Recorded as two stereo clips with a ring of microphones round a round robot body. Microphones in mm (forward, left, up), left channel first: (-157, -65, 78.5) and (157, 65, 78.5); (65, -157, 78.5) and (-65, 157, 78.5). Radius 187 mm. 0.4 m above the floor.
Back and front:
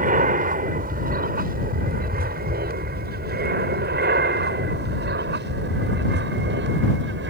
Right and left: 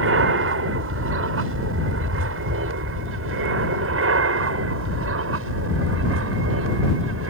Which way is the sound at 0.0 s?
80° left.